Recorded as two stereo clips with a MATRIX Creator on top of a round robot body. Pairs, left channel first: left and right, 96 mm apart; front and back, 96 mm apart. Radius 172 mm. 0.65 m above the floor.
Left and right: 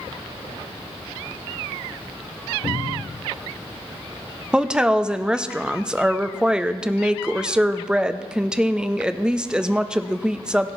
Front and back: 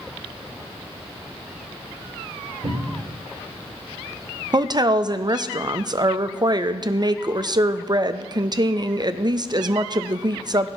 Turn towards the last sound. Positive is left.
turn(degrees=-170)